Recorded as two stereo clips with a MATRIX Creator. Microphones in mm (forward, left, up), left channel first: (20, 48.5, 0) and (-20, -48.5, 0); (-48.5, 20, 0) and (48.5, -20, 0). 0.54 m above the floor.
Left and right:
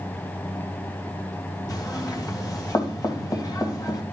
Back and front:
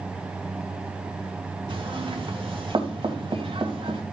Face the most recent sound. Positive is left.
turn(degrees=15)